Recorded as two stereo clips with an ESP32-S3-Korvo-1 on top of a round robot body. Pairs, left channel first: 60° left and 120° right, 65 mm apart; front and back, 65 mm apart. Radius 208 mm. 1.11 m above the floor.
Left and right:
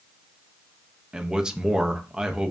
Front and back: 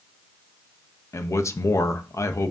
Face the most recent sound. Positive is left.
turn(degrees=-40)